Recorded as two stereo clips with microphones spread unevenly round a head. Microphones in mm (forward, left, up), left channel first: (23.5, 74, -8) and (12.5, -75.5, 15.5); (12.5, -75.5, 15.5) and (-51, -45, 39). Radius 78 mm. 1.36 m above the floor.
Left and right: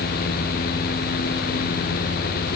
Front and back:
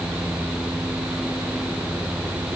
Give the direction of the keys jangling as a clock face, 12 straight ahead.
I don't hear keys jangling.